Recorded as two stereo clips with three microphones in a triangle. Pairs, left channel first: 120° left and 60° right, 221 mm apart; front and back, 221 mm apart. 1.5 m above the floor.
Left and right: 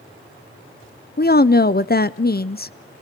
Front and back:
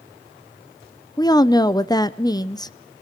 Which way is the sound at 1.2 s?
70° left.